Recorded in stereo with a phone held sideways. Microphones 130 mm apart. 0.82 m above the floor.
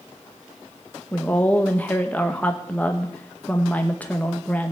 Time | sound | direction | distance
1.1 | a woman speaking | 10° left (ahead or behind) | 0.9 m